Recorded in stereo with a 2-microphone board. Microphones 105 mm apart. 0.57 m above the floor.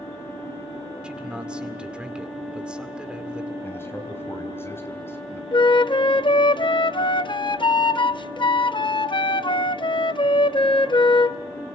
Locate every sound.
1.0 s a man speaking: 10° right (ahead or behind), 2 m
3.6 s a man speaking: 20° left (ahead or behind), 3.5 m
5.5 s a flute: 50° left (ahead or behind), 0.5 m